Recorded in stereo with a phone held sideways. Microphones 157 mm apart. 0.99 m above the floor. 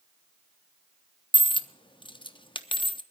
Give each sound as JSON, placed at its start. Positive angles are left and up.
{"t": 1.3, "sound": "a dropped coin", "side_deg": 30, "distance_m": 0.7}